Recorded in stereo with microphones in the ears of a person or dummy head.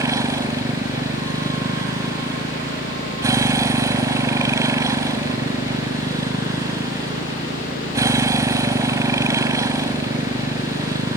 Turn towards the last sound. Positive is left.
turn(degrees=-15)  # may be behind; listen again after turning